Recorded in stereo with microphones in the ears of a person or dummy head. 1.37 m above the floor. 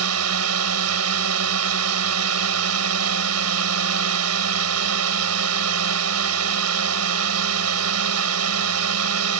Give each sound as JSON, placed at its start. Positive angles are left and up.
{"t": 0.0, "sound": "a drone", "side_deg": -80}